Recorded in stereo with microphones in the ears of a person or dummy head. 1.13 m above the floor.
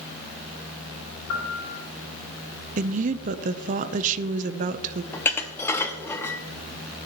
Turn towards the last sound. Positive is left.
turn(degrees=5)  # may be behind; listen again after turning